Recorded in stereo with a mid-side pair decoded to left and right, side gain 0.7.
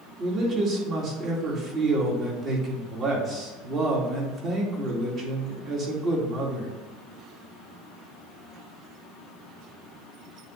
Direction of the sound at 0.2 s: 45° right.